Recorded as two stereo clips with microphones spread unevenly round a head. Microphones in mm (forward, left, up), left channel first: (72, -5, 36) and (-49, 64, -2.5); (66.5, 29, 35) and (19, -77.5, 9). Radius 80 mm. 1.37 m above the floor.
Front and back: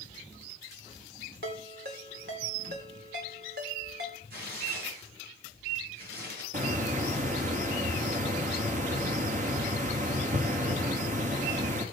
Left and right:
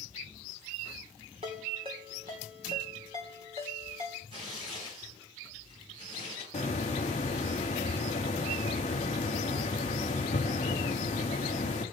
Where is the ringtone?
175° right, 2.5 m.